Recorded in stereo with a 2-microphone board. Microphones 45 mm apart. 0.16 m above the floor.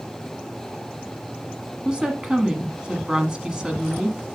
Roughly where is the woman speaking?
Centre.